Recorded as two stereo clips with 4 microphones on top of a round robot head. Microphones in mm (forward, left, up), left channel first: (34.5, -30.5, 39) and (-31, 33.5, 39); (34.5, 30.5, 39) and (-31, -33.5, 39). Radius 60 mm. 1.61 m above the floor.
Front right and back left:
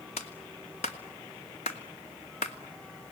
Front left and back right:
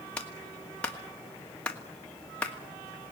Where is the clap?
35° right, 2 m.